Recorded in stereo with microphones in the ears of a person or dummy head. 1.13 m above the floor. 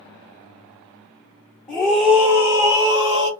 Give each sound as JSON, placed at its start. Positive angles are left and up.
{"t": 1.7, "sound": "a scream", "side_deg": 5, "distance_m": 2.0}